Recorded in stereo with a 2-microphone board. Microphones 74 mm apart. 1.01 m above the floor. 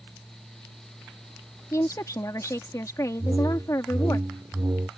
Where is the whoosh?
55° right (ahead or behind).